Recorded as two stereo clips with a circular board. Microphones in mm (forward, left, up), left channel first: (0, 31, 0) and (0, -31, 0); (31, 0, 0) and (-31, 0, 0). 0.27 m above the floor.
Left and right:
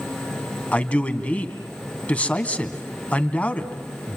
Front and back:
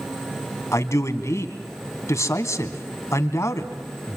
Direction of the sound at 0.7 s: 25° left.